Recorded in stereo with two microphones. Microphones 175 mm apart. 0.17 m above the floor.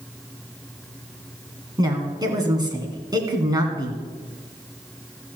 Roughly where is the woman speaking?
Right.